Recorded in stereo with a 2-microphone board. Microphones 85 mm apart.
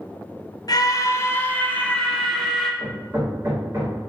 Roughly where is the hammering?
Right.